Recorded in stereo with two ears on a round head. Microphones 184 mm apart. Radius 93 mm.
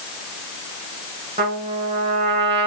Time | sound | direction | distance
1.4 | a trumpet | 25° right (ahead or behind) | 3 m